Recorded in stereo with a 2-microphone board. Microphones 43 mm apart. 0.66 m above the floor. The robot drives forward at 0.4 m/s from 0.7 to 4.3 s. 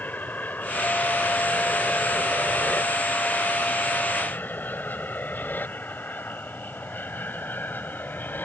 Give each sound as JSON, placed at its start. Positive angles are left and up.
{"t": 0.0, "sound": "an aircraft", "side_deg": 45}